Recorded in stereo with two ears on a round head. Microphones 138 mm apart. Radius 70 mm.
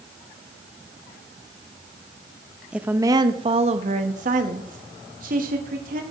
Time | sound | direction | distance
2.7 | a woman speaking | 5° right (ahead or behind) | 0.6 m